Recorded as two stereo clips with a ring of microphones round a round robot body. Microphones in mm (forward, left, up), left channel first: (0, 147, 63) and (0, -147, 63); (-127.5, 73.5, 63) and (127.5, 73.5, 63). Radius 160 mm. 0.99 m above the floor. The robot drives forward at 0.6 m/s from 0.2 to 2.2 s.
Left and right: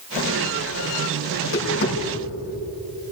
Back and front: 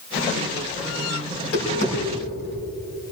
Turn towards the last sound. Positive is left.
turn(degrees=145)